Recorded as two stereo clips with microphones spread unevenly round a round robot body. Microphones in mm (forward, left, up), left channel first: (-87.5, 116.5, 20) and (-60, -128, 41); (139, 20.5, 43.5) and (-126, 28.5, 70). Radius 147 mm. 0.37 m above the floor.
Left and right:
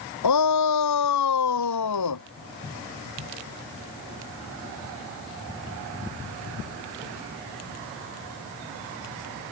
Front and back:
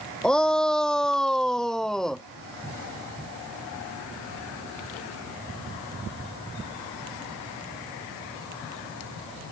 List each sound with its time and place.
0.2 s a shout: 85° left